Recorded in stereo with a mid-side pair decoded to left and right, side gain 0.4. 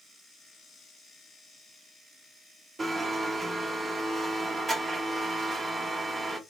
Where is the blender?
30° right, 1.1 m.